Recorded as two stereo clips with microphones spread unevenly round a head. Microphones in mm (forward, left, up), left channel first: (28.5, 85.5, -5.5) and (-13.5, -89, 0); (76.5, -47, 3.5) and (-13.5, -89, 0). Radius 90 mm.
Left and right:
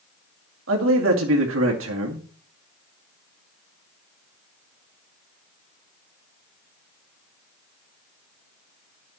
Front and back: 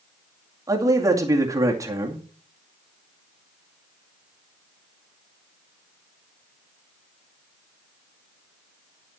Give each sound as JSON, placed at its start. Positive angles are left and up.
{"t": 0.7, "sound": "a man speaking", "azimuth_deg": -100, "distance_m": 2.5}